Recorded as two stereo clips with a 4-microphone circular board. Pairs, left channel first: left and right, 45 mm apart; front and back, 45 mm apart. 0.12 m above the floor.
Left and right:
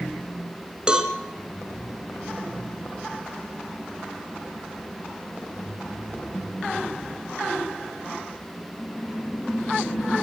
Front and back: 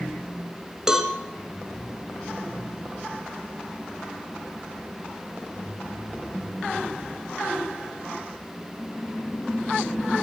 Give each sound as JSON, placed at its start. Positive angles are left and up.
{"t": 0.9, "sound": "a cowbell", "azimuth_deg": -125, "distance_m": 1.6}